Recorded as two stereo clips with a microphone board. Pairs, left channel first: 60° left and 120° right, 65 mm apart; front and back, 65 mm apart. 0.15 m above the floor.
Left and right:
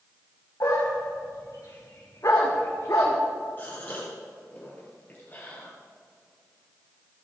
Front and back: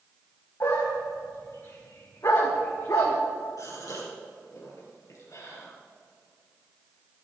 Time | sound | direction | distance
0.6 | a dog barking | 30° left | 4 m
3.6 | a gasp | 5° left | 4 m